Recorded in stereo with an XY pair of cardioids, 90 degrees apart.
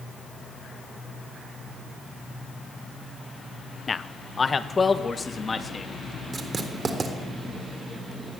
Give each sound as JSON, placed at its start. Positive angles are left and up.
{"t": 3.9, "sound": "a man speaking", "azimuth_deg": 35, "distance_m": 1.3}
{"t": 6.3, "sound": "writing", "azimuth_deg": -40, "distance_m": 4.0}